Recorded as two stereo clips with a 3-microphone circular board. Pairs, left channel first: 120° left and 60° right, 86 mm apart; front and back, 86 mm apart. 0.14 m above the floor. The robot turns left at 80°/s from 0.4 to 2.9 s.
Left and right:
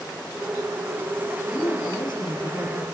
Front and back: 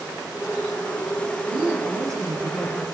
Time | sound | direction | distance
1.5 | a woman speaking | 175° right | 7 m